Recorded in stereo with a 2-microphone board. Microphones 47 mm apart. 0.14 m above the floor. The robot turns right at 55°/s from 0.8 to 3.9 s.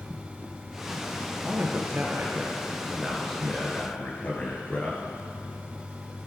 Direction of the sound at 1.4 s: 95° right.